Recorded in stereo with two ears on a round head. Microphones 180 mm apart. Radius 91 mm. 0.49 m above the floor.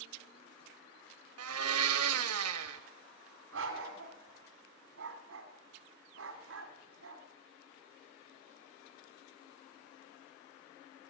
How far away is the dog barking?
About 1.6 m.